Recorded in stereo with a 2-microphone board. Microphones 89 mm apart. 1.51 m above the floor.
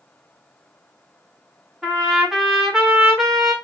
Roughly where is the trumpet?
Centre.